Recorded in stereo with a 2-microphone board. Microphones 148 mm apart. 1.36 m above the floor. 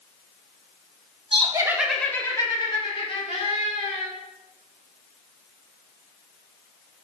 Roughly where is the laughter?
Right.